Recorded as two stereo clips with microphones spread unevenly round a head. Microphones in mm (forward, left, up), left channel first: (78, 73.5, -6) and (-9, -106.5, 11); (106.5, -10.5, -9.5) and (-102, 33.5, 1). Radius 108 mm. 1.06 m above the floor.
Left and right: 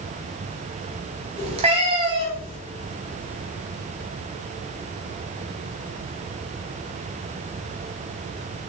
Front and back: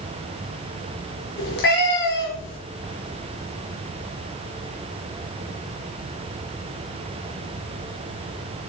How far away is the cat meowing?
About 3 m.